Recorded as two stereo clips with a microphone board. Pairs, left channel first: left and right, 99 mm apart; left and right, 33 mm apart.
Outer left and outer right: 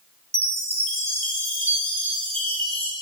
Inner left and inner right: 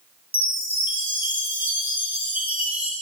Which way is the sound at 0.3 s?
75° right (ahead or behind).